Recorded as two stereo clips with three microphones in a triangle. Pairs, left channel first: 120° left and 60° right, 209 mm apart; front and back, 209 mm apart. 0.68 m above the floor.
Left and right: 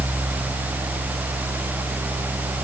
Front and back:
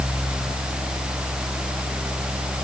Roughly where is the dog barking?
I don't hear a dog barking.